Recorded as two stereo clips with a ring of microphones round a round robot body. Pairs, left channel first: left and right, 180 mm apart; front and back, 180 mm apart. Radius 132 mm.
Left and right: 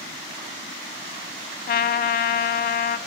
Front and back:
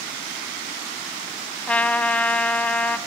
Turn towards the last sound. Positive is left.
turn(degrees=80)